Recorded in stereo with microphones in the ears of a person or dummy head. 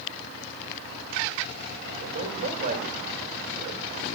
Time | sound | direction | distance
2.0 | a man speaking | 55° right (ahead or behind) | 5 m